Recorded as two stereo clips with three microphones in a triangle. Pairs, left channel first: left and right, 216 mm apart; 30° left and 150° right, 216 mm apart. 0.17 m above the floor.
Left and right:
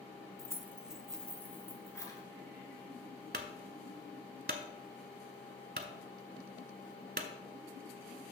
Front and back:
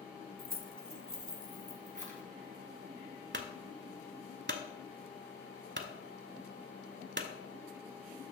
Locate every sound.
0.4 s keys jangling: 155° right, 0.9 m; by 2.2 s 165° left, 1.7 m
3.3 s a clunk: 125° right, 0.8 m